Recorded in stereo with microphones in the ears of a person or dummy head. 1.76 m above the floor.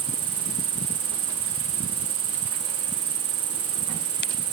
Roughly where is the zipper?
I don't hear a zipper.